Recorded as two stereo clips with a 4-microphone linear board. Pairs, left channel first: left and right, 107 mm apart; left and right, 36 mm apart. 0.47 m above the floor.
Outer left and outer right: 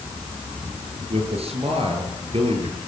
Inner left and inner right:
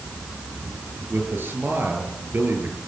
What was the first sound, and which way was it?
A man speaking, 70° right (ahead or behind).